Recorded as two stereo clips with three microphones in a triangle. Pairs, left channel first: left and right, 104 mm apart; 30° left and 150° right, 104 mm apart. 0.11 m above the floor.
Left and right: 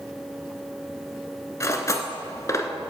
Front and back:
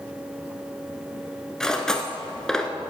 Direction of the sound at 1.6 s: 110° left.